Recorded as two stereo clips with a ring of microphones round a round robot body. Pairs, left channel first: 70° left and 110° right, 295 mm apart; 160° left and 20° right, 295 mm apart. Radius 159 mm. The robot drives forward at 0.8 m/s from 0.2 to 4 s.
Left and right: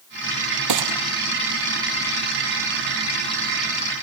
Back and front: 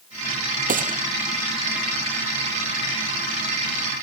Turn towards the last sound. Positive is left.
turn(degrees=-100)